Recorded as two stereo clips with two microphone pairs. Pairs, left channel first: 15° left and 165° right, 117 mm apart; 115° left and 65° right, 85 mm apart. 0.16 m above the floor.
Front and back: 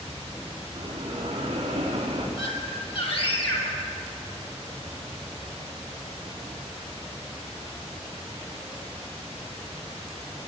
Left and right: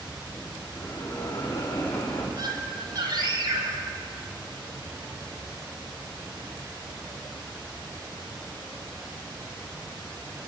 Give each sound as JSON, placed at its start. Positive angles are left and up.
{"t": 0.8, "sound": "a bell", "azimuth_deg": 150, "distance_m": 6.0}
{"t": 2.4, "sound": "a scream", "azimuth_deg": -25, "distance_m": 5.0}